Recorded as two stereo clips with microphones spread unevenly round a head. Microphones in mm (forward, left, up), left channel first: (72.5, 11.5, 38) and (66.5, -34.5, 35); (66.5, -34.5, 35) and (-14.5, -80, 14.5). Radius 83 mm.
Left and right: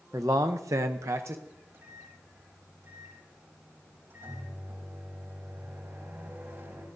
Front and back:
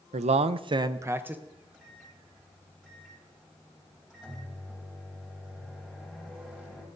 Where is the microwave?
70° right, 7.5 m.